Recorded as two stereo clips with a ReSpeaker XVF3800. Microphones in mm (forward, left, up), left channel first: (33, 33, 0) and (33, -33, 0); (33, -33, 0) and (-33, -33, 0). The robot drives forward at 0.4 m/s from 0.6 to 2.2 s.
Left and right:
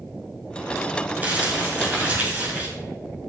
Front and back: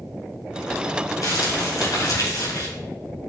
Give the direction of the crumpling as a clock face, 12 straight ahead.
1 o'clock.